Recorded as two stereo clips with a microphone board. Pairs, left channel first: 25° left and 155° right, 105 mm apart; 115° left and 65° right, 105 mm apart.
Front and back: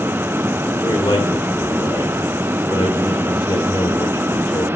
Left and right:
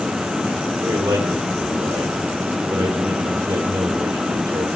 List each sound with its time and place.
0.8 s a man speaking: 25° right, 1.3 m